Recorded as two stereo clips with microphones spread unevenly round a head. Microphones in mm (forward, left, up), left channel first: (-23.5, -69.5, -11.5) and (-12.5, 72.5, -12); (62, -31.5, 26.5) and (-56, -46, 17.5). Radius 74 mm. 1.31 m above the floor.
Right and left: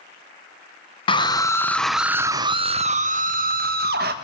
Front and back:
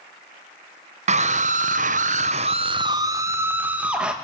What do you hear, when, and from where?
1.1 s a scream: 150° right, 1.1 m; by 4.1 s 100° left, 1.7 m